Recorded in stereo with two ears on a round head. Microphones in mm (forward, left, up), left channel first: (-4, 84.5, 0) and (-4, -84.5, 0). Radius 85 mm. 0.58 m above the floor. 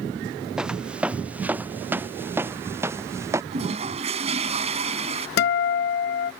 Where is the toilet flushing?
35° right (ahead or behind).